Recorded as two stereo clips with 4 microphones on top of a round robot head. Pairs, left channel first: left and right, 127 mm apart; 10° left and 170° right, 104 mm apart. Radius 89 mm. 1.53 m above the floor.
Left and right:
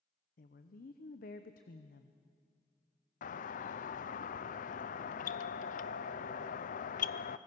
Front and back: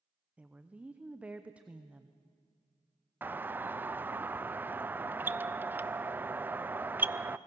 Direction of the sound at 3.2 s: 120° left.